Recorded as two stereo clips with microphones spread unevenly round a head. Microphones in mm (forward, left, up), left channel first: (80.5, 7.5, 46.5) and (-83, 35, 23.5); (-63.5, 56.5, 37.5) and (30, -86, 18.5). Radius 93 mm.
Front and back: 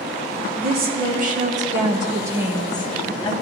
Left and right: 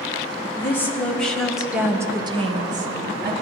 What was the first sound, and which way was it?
A woman speaking, 160° right.